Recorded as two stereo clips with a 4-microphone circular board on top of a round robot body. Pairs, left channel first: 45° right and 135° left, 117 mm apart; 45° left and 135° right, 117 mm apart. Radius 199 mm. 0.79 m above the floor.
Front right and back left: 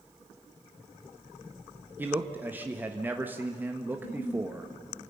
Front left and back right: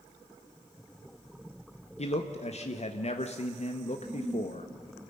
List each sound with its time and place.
2.0 s a man speaking: 60° left, 1.6 m
3.9 s a giggle: 50° right, 5.5 m